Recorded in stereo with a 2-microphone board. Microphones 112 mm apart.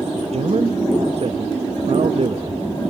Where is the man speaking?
60° right (ahead or behind), 0.7 m.